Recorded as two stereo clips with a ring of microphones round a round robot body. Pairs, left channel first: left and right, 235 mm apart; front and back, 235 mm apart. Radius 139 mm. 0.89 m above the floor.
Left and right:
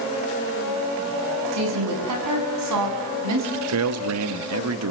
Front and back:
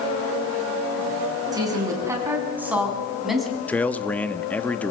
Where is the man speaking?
85° right, 1.4 m.